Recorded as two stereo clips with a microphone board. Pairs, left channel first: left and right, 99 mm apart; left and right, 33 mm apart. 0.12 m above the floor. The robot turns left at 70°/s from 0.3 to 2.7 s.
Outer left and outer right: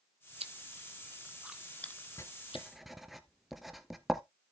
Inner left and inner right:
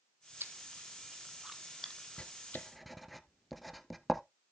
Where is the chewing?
80° right, 0.8 m; by 2.6 s 70° left (ahead or behind), 0.8 m.